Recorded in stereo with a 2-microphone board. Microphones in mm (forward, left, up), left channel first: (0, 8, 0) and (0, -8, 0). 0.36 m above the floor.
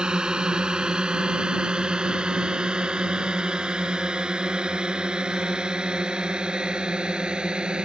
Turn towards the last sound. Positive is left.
turn(degrees=-65)  # may be behind; listen again after turning